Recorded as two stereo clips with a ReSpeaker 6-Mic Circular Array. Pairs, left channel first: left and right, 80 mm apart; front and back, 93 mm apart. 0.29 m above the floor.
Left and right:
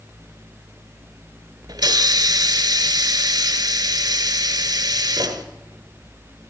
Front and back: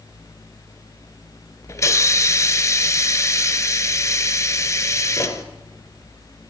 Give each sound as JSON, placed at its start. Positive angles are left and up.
{"t": 1.7, "sound": "a hiss", "azimuth_deg": -55, "distance_m": 1.0}